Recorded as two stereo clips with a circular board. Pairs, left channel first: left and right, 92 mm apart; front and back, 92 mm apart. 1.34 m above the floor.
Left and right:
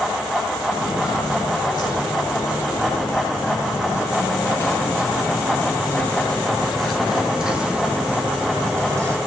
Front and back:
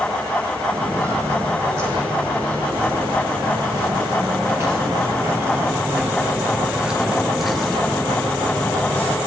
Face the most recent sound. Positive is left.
turn(degrees=-60)